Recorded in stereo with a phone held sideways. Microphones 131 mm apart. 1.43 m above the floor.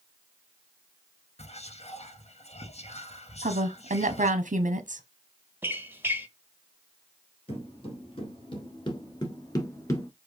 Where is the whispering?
55° left (ahead or behind), 0.8 m.